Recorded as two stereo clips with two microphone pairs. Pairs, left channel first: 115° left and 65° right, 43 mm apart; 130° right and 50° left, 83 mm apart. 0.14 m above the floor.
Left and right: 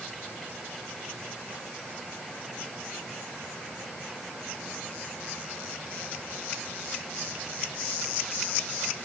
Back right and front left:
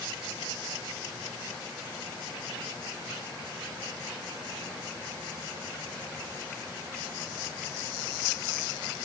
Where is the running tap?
No running tap in this recording.